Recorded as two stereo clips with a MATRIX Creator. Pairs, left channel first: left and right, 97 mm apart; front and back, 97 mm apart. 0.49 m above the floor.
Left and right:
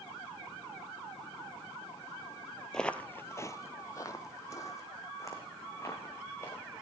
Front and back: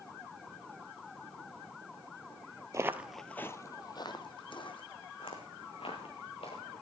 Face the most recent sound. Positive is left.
turn(degrees=25)